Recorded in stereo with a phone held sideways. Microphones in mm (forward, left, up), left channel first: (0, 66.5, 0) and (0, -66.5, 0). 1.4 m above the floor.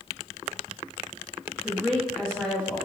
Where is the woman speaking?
5° left (ahead or behind), 1.4 m.